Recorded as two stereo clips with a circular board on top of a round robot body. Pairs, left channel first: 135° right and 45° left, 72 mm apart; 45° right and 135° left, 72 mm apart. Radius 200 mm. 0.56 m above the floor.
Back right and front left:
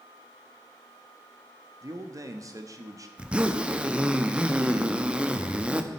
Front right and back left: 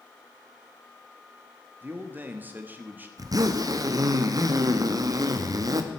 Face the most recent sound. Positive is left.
turn(degrees=115)